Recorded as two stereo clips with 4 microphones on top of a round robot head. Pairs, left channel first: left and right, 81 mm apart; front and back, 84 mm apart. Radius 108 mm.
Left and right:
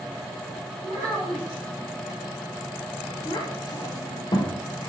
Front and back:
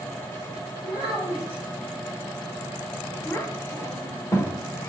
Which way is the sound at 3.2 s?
60° left.